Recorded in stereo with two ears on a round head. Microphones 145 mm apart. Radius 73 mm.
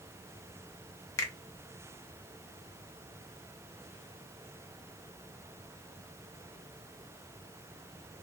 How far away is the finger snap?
About 0.6 m.